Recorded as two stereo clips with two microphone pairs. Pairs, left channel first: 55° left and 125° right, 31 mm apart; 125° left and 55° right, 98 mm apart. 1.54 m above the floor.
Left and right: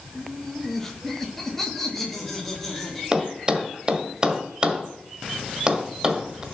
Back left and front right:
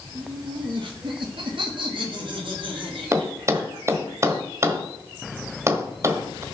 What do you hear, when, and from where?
0.1 s laughter: 20° right, 2 m; by 4.1 s 25° right, 5 m
3.1 s a thud: 90° right, 1.5 m